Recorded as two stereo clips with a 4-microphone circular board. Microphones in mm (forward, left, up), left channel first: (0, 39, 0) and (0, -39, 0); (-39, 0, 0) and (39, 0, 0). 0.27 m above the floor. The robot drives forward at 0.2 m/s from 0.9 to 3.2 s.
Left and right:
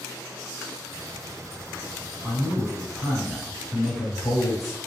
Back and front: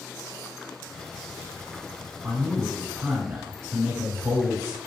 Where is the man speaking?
15° left, 1.1 m; by 4.8 s 20° left, 1.1 m.